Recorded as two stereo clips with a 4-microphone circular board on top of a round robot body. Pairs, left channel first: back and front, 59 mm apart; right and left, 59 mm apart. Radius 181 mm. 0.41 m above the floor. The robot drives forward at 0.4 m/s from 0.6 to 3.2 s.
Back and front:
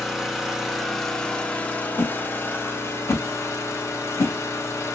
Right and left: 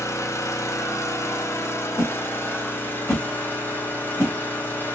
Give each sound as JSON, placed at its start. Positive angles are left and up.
{"t": 0.0, "sound": "an engine running", "azimuth_deg": -85, "distance_m": 1.0}
{"t": 2.0, "sound": "a whoosh", "azimuth_deg": -125, "distance_m": 1.4}